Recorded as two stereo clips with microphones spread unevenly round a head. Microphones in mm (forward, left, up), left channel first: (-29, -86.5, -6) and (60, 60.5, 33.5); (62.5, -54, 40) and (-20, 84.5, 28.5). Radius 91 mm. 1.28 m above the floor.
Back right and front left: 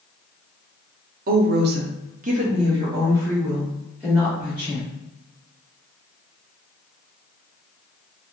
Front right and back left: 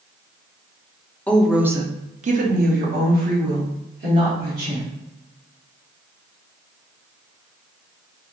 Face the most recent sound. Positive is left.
turn(degrees=150)